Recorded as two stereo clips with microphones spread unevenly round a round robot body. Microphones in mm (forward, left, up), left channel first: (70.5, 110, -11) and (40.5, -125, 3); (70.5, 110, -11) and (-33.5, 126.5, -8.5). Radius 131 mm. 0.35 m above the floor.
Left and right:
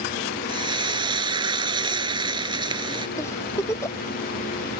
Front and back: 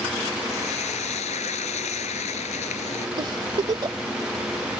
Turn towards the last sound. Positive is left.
turn(degrees=155)